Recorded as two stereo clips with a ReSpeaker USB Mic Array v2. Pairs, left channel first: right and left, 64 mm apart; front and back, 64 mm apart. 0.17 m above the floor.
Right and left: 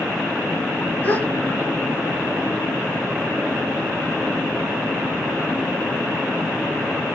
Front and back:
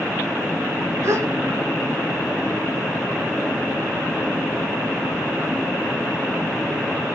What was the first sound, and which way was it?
A gasp, 150° right.